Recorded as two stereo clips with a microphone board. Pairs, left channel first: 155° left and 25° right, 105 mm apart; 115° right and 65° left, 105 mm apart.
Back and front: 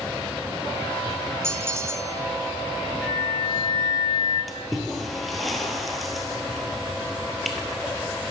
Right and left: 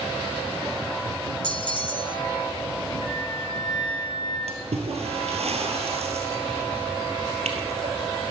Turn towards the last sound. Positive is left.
turn(degrees=70)